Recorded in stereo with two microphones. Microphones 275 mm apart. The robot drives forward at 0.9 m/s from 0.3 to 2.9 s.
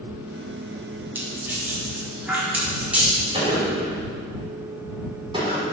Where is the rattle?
5° right (ahead or behind), 3 m.